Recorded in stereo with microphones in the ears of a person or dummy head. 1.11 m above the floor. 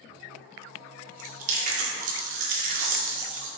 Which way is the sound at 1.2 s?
45° right (ahead or behind).